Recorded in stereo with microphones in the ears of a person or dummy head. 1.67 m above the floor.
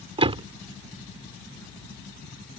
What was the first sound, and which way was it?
A door slam, 25° right (ahead or behind).